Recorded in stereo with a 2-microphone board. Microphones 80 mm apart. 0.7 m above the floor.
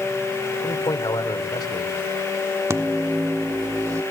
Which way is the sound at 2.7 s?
40° right (ahead or behind).